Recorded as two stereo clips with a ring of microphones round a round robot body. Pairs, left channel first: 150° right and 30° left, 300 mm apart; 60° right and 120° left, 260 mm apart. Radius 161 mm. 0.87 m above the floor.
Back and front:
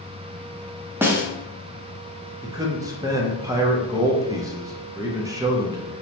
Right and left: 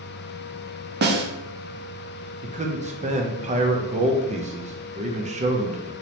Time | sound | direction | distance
1.0 | a snare drum | 110° left | 0.6 m
2.4 | a man speaking | 95° left | 0.6 m